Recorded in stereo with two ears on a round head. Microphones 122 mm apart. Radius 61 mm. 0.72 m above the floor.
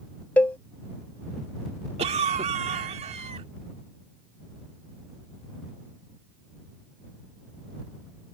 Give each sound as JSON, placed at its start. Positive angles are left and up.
{"t": 0.4, "sound": "a cowbell", "side_deg": 10}
{"t": 2.0, "sound": "a cough", "side_deg": -50}